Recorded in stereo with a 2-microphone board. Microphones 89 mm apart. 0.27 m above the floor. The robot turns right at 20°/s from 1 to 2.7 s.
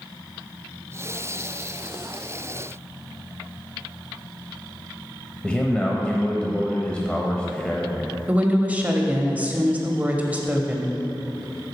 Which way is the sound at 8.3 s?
15° right (ahead or behind).